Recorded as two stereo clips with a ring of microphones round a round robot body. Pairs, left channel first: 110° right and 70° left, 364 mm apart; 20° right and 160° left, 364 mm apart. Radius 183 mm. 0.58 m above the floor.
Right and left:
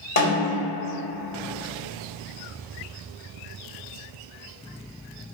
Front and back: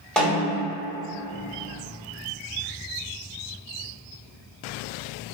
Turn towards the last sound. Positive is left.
turn(degrees=-105)